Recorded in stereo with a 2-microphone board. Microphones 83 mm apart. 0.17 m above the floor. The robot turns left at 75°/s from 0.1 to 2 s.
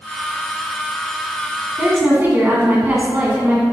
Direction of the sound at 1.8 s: 20° right (ahead or behind).